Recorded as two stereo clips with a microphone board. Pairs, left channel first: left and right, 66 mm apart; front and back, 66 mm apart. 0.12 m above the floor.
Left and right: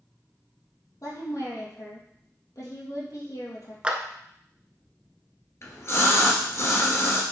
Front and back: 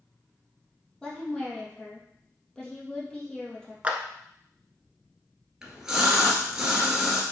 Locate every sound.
1.0 s a woman speaking: 75° left, 3 m
3.8 s a clap: 140° right, 1.0 m
5.6 s a splash: 105° left, 1.8 m